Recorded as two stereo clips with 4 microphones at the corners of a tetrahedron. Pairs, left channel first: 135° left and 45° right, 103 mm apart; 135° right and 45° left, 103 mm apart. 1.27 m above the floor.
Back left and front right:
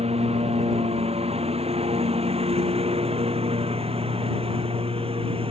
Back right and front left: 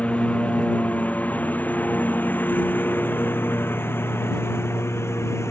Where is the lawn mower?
55° right; by 5.5 s 70° right.